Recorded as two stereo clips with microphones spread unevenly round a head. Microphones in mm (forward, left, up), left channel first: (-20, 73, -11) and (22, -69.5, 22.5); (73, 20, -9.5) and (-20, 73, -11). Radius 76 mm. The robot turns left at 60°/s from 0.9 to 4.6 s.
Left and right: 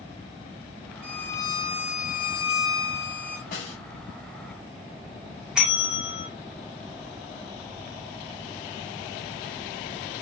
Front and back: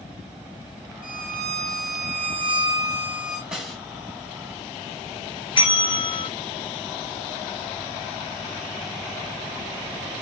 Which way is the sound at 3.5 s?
70° left.